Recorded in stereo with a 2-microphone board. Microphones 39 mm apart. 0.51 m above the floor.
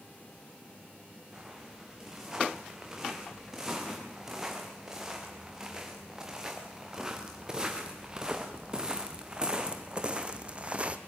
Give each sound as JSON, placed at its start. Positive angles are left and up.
{"t": 1.3, "sound": "footsteps", "side_deg": -15, "distance_m": 6.0}